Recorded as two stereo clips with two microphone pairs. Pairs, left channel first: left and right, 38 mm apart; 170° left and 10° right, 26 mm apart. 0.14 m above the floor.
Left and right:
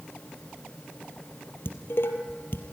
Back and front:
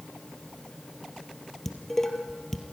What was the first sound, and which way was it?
Dishes clattering, 95° left.